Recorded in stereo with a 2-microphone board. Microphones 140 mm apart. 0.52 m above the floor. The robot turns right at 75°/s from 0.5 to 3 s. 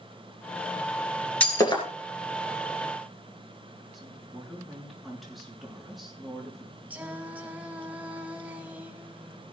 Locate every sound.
1.4 s breaking glass: 10° left (ahead or behind), 3 m; by 1.8 s 45° left (ahead or behind), 3 m
3.9 s a woman speaking: centre (ahead or behind), 6.5 m
6.9 s singing: 10° right (ahead or behind), 2.0 m